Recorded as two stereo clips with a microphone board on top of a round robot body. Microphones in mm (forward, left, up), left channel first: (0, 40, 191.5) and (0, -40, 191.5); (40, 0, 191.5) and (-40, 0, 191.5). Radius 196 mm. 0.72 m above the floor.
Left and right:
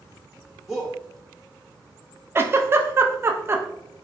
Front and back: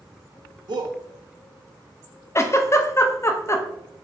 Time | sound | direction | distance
0.7 | a shout | 175° right | 0.8 m
2.4 | a giggle | 40° right | 0.7 m